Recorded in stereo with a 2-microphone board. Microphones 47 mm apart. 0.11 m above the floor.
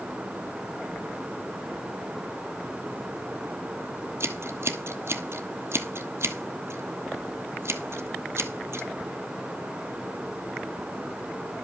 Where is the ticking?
No ticking in this recording.